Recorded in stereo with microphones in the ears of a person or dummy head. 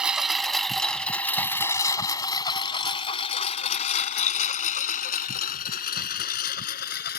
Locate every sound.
0.0 s a lawn mower: 10° right (ahead or behind); by 7.2 s 55° left (ahead or behind)